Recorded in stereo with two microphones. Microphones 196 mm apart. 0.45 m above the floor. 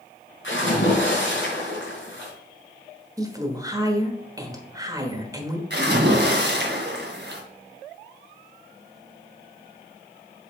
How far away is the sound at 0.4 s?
About 3.5 m.